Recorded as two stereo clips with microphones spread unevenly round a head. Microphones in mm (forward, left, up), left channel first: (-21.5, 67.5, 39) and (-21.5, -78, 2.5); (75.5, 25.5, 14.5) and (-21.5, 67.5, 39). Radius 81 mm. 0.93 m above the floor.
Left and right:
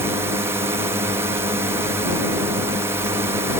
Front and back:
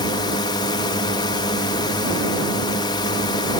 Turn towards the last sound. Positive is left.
turn(degrees=-35)